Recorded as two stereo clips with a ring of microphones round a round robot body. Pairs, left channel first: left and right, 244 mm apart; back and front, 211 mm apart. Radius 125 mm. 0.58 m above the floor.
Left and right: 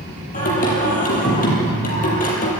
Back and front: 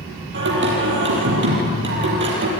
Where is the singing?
30° left, 6 m.